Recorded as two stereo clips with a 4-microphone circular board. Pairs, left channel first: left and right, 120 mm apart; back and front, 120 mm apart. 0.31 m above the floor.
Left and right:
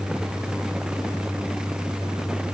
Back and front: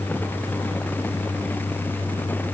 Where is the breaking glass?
I don't hear breaking glass.